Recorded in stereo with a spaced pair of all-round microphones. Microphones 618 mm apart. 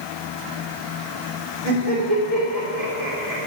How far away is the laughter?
About 3.5 m.